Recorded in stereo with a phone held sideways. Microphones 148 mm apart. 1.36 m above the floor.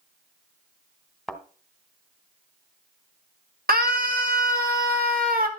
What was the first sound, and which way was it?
A thud, centre (ahead or behind).